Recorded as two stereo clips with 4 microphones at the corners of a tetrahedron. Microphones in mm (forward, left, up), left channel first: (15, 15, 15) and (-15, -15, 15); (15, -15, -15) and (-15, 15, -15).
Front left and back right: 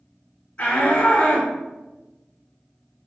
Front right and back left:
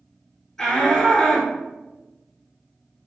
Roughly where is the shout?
Ahead.